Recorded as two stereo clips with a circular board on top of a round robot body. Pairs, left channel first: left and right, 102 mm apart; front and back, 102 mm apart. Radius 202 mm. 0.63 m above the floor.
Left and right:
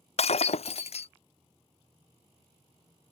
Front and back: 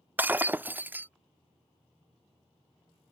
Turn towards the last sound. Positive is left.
turn(degrees=105)